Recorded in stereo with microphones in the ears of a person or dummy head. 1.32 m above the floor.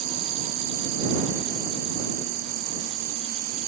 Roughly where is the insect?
Right.